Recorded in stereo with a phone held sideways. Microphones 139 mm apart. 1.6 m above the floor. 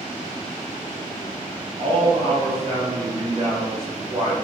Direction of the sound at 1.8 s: 40° right (ahead or behind).